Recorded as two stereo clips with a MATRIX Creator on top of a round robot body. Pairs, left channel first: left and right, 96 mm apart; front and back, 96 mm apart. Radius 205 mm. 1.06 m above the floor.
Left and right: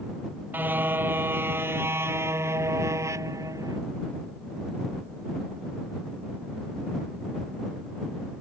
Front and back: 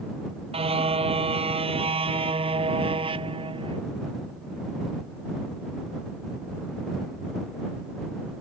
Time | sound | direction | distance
0.5 | a car horn | 160° right | ?